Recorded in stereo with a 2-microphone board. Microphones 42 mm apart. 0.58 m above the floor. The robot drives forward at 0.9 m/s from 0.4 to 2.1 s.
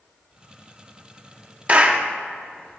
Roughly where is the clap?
Right.